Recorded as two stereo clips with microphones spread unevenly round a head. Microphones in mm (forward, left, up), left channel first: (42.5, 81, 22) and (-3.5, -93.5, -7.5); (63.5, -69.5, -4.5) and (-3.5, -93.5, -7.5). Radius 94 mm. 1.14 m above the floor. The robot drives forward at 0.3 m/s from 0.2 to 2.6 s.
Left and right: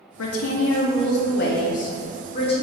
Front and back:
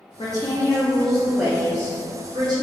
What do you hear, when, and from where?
0.2 s a woman speaking: 85° left, 0.6 m; by 2.6 s 140° left, 0.9 m